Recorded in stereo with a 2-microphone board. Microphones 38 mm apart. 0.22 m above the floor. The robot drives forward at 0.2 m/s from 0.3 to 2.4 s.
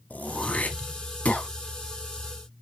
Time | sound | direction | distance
0.1 | throat clearing | 40° left (ahead or behind) | 0.8 m